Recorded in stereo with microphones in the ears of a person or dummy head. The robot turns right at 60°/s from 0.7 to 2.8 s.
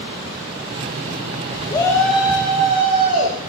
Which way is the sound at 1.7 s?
155° left.